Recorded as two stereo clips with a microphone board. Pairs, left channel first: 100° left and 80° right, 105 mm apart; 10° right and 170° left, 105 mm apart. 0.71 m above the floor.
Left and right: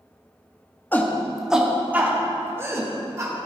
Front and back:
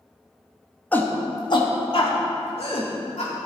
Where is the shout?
50° left, 1.1 m; by 3.3 s 20° right, 3 m.